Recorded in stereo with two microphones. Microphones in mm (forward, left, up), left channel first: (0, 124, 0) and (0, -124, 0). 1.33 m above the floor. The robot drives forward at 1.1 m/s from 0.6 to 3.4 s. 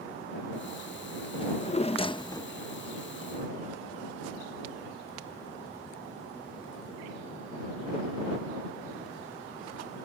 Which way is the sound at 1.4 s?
20° left (ahead or behind).